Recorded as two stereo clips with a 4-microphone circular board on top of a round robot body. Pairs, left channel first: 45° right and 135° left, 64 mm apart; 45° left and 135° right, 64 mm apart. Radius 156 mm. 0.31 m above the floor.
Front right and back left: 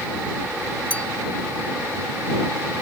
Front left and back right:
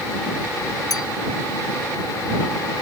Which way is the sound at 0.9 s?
25° left.